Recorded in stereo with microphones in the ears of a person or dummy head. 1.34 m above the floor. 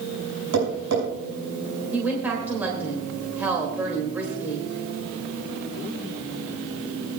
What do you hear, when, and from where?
0.5 s tapping: 65° right (ahead or behind), 6 m
1.9 s a woman speaking: 5° right (ahead or behind), 2.5 m